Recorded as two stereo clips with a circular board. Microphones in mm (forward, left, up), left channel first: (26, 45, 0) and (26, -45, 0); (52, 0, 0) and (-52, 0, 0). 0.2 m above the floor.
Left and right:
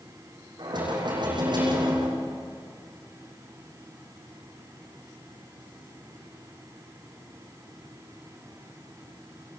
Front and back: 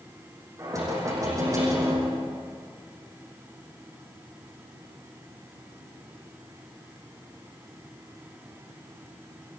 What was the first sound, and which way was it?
Knocking, 125° right.